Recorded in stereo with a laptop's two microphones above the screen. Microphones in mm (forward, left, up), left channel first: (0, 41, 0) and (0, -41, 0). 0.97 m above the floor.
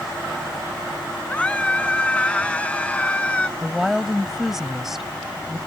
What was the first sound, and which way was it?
A scream, 15° left (ahead or behind).